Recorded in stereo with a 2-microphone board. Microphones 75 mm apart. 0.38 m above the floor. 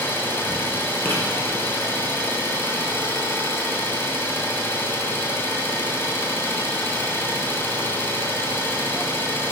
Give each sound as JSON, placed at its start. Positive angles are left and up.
{"t": 0.0, "sound": "an engine running", "side_deg": 30, "distance_m": 1.8}
{"t": 1.1, "sound": "writing", "side_deg": 25, "distance_m": 3.5}